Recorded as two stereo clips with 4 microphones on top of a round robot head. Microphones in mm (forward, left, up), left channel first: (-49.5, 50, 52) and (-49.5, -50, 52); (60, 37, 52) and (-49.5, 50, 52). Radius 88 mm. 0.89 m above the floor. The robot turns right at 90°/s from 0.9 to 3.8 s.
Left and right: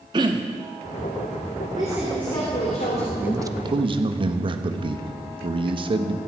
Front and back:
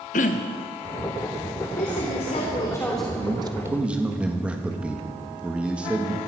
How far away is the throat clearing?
About 0.6 m.